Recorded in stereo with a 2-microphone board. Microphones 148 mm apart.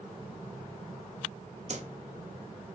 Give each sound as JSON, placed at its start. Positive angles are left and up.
{"t": 1.7, "sound": "a whoosh", "side_deg": -50, "distance_m": 0.5}